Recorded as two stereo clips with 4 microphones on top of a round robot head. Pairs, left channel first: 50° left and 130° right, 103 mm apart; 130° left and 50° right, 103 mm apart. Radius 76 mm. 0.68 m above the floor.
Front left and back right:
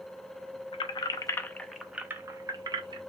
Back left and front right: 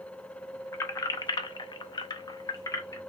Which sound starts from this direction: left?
Keys jangling, at 0.7 s.